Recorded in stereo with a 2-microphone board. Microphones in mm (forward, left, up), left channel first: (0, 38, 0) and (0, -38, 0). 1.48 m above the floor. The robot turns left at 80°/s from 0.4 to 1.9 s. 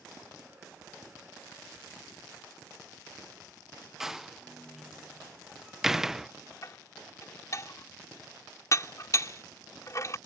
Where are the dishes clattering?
45° left (ahead or behind).